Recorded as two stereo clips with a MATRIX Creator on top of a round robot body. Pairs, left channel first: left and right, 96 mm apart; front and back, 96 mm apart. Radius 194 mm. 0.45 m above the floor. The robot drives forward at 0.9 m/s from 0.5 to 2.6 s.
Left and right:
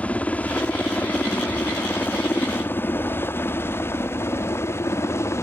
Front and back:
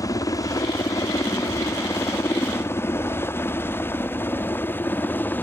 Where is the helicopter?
20° left; by 5.4 s 55° left.